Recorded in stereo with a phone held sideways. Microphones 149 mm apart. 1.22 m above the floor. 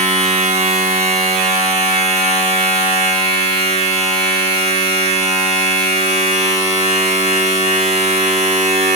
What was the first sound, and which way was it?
A machine running, 45° right (ahead or behind).